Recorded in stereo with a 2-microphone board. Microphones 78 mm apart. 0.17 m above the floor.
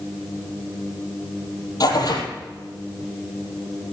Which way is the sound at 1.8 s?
55° left (ahead or behind).